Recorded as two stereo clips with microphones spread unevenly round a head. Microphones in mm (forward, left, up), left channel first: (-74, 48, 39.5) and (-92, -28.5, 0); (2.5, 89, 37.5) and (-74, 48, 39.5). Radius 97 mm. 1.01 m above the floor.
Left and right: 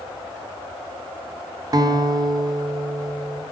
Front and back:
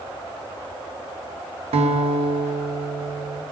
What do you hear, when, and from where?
1.7 s a guitar: 150° right, 0.8 m